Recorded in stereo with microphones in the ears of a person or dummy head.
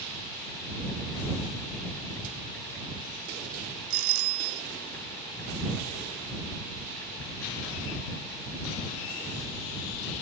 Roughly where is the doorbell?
Right.